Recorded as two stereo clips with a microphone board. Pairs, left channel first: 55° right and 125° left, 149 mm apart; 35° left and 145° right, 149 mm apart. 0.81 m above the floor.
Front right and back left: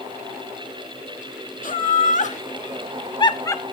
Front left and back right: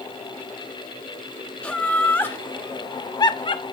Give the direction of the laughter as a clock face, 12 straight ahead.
2 o'clock.